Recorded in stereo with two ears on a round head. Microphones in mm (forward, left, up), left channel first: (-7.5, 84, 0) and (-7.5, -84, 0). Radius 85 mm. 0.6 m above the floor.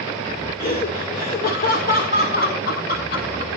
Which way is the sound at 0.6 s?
50° left (ahead or behind).